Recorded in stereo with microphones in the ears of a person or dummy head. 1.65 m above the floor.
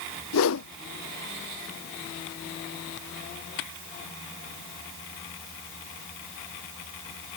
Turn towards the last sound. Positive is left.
turn(degrees=80)